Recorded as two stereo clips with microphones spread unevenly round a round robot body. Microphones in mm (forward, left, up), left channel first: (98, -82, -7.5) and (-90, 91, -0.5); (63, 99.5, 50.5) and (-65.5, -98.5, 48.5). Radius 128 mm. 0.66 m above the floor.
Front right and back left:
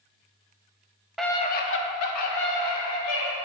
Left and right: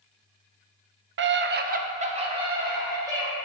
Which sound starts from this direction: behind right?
A scream, at 1.2 s.